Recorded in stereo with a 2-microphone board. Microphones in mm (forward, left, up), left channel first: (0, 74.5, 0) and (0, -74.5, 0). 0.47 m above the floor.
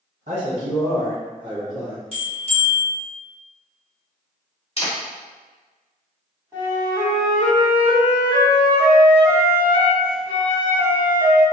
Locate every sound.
0.3 s a man speaking: 55° right (ahead or behind), 1.7 m; by 2.0 s 10° right (ahead or behind), 1.0 m
2.1 s a bell: 40° left (ahead or behind), 1.2 m
4.8 s a camera shutter: 40° left (ahead or behind), 1.1 m
6.5 s a flute: 15° right (ahead or behind), 1.5 m